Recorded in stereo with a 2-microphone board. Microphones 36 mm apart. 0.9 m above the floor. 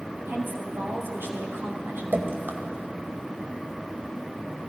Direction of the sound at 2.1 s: 75° right (ahead or behind).